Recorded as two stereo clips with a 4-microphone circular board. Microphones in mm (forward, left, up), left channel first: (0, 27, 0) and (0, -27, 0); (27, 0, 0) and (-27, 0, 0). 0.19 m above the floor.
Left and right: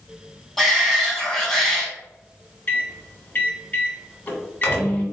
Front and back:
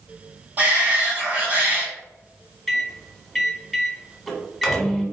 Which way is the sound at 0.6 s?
175° left.